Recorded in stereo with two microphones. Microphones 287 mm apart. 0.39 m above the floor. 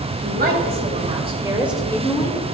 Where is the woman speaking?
35° right (ahead or behind), 3 m; by 2.4 s 30° left (ahead or behind), 1.5 m.